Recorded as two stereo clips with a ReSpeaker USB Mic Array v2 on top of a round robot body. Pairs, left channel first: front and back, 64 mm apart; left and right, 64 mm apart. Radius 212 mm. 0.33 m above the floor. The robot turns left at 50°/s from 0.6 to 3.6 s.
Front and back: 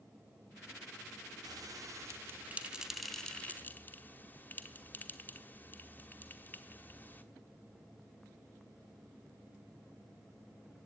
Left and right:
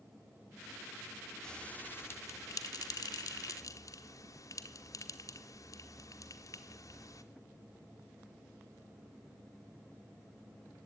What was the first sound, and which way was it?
A bell, 170° left.